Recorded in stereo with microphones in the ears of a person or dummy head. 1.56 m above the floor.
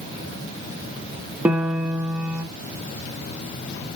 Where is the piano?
5° right (ahead or behind), 1.0 m.